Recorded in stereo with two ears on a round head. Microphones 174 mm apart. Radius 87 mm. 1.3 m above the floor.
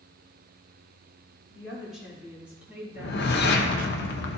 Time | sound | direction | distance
1.5 | a woman speaking | centre (ahead or behind) | 3.5 m
3.0 | a whoosh | 60° left (ahead or behind) | 0.9 m